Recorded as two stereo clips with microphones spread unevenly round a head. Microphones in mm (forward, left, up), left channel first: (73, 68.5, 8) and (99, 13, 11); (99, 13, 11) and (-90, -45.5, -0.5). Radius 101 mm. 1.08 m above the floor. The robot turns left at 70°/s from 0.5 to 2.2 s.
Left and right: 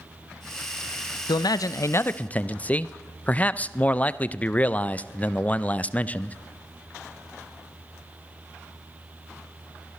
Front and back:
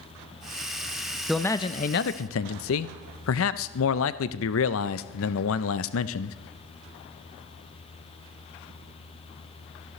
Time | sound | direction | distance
1.3 | a man speaking | 110° left | 0.5 m